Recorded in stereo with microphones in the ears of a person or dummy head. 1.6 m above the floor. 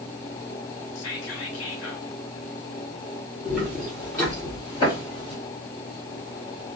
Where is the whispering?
80° left, 0.8 m.